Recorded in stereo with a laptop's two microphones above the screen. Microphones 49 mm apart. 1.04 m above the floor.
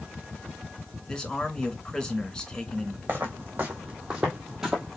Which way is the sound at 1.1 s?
20° left (ahead or behind).